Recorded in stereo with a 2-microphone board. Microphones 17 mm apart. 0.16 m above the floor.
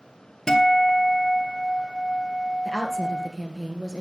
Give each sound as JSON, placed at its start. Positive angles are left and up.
{"t": 0.5, "sound": "a guitar", "side_deg": 30, "distance_m": 1.9}
{"t": 2.6, "sound": "a woman speaking", "side_deg": 10, "distance_m": 2.5}